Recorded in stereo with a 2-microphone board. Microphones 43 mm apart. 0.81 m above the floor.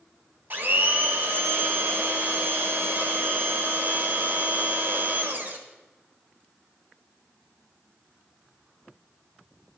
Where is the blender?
50° right (ahead or behind), 1.3 m.